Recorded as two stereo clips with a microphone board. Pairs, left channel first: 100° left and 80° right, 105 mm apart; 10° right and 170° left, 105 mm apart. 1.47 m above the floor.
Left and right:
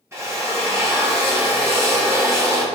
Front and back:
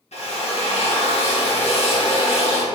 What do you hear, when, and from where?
0.1 s a drill: 15° right, 1.8 m